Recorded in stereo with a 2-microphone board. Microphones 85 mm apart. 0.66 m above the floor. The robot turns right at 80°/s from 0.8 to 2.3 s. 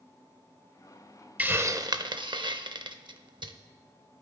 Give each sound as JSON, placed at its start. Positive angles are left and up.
{"t": 1.4, "sound": "a hiss", "side_deg": -20, "distance_m": 0.5}